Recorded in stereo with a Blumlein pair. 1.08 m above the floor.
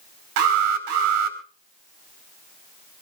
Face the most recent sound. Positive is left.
turn(degrees=-50)